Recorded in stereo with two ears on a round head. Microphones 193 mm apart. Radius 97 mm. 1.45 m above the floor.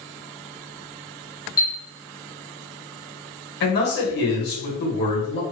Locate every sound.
1.6 s a chime: 15° left (ahead or behind), 0.8 m
3.6 s a man speaking: 50° left (ahead or behind), 1.3 m